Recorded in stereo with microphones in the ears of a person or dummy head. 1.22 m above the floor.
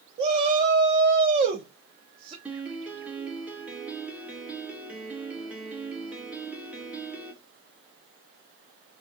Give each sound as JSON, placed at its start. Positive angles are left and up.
{"t": 0.2, "sound": "a shout", "side_deg": -30, "distance_m": 0.7}
{"t": 2.5, "sound": "a piano", "side_deg": -10, "distance_m": 0.6}